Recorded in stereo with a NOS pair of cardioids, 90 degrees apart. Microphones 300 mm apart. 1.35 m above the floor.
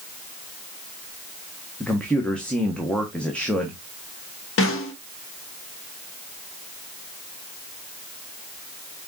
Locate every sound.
1.8 s a man speaking: 5° left, 1.3 m
4.6 s a snare drum: 45° left, 1.3 m